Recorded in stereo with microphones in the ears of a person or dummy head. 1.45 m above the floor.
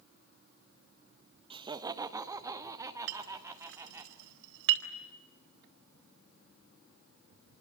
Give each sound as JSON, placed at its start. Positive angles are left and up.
{"t": 1.5, "sound": "laughter", "side_deg": -25, "distance_m": 1.2}
{"t": 3.1, "sound": "a clink", "side_deg": -80, "distance_m": 4.0}